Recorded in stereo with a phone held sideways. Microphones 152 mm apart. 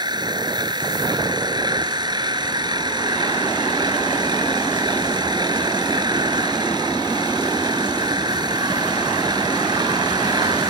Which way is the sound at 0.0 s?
30° right (ahead or behind).